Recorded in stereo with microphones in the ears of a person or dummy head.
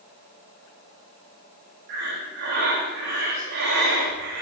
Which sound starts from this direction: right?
Breathing, at 1.9 s.